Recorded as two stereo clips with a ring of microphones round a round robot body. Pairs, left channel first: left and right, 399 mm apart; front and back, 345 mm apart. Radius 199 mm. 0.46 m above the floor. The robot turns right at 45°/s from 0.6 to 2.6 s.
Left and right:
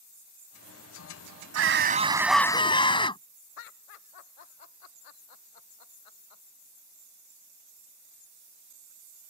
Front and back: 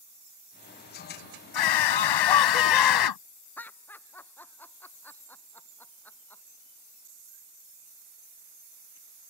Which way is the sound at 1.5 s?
35° right.